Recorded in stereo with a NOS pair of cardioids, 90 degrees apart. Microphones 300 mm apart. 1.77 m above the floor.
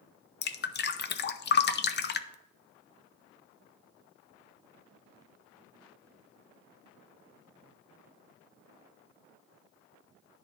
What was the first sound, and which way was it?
Dripping, 35° left.